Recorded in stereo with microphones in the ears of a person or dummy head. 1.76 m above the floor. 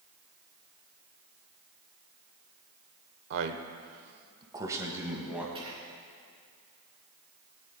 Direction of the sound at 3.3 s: 65° right (ahead or behind).